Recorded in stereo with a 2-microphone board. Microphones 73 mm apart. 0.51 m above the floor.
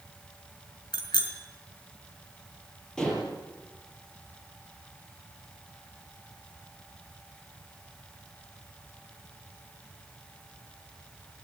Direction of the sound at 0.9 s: 85° left.